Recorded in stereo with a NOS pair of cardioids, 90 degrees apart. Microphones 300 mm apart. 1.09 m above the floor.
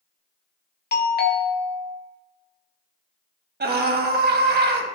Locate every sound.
0.9 s a doorbell: 35° left, 1.4 m
3.6 s a scream: 35° right, 1.6 m